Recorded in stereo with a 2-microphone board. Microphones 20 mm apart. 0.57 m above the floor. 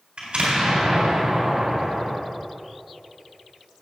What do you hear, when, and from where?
0.2 s an explosion: 50° right (ahead or behind), 3.5 m